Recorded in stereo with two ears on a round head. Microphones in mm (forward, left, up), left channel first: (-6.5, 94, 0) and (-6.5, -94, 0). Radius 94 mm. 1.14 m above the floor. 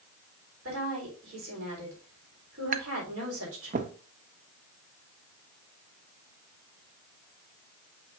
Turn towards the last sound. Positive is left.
turn(degrees=-35)  # may be behind; listen again after turning